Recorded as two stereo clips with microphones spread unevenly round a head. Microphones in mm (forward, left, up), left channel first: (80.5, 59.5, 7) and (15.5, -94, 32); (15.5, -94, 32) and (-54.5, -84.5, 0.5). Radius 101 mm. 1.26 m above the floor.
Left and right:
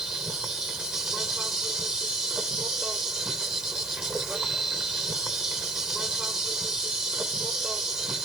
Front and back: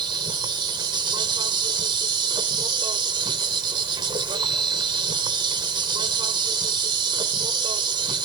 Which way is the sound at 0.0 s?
160° left.